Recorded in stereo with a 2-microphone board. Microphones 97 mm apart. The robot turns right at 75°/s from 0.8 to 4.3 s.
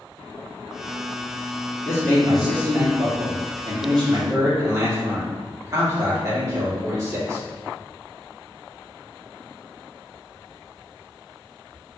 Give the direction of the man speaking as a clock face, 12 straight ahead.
7 o'clock.